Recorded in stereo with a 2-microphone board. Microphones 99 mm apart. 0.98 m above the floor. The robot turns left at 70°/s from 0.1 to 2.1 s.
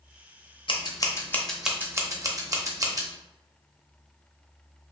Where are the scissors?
60° left (ahead or behind), 0.6 m; by 3.1 s 35° right (ahead or behind), 0.6 m.